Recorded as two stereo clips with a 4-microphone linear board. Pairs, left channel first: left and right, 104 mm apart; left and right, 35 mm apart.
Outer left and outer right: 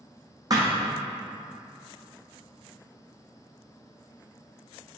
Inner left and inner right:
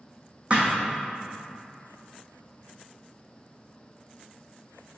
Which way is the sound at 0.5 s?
35° right (ahead or behind).